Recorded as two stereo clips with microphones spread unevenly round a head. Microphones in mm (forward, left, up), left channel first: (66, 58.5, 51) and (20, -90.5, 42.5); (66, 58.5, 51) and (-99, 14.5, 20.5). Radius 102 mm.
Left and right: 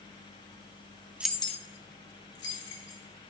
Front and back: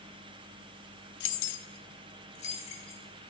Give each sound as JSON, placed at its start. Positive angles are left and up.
{"t": 1.2, "sound": "keys jangling", "azimuth_deg": -25, "distance_m": 0.5}